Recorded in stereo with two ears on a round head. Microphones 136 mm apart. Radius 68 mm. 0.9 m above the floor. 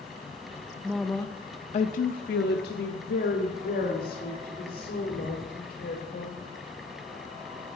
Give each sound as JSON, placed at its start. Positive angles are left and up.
{"t": 0.8, "sound": "a woman speaking", "side_deg": -5, "distance_m": 0.5}